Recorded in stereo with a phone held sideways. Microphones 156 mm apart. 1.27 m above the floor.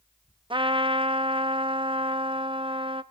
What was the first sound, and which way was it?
A trumpet, 35° right (ahead or behind).